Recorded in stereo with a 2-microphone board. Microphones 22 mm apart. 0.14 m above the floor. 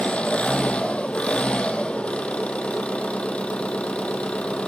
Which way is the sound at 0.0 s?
70° left (ahead or behind).